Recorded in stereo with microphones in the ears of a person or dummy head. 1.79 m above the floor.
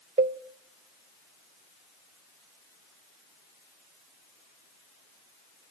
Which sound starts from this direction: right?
A cowbell, at 0.2 s.